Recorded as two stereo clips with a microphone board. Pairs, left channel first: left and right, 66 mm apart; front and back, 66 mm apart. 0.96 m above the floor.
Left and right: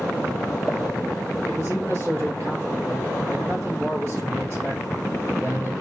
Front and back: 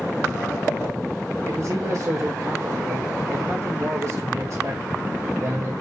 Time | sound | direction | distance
1.4 | a man speaking | 140° right | 4 m